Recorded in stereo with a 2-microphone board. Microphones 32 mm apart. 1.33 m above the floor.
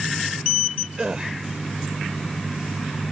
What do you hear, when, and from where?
1.0 s a gasp: 30° right (ahead or behind)